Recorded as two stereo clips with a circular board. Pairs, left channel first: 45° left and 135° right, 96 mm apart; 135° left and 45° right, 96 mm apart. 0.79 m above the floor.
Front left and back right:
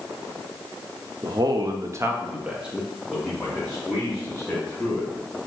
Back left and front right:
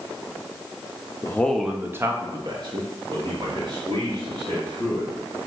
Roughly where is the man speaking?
Behind.